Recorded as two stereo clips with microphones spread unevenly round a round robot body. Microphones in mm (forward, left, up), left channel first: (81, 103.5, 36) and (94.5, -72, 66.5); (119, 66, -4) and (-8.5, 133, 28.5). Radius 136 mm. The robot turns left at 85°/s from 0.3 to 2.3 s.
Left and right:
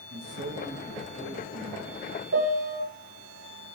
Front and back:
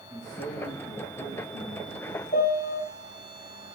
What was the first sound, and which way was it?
A man speaking, 115° right.